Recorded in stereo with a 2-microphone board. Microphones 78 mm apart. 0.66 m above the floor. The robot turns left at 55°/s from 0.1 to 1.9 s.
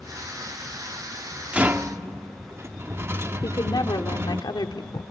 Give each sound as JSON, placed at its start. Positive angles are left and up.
{"t": 1.5, "sound": "a rattle", "side_deg": -15, "distance_m": 1.0}
{"t": 3.4, "sound": "a woman speaking", "side_deg": 65, "distance_m": 1.5}